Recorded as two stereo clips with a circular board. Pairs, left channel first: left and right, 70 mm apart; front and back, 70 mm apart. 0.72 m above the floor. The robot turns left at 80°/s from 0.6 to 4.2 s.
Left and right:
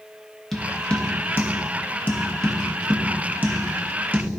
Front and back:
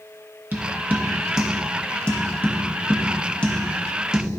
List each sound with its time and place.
0.5 s tapping: 170° left, 1.0 m; by 4.3 s 120° right, 1.0 m